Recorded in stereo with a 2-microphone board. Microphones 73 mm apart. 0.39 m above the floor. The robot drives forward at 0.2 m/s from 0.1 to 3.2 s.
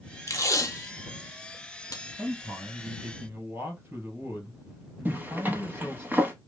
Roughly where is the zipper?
Right.